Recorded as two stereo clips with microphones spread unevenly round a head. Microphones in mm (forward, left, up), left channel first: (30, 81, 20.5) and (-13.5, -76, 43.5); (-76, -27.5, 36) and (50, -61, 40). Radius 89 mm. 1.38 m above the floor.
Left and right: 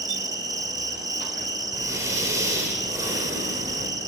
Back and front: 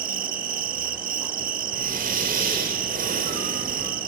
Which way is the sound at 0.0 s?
35° right.